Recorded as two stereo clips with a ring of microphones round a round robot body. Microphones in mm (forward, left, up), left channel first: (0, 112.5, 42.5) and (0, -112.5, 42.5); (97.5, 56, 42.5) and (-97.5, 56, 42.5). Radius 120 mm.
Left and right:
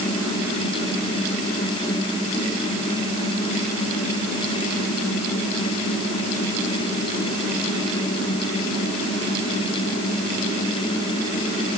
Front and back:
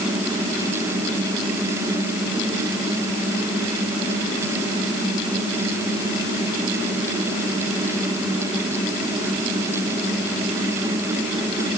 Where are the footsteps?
I don't hear footsteps.